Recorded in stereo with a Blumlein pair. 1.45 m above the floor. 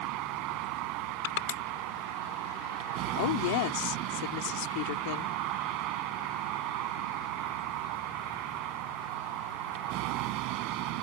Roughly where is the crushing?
Ahead left.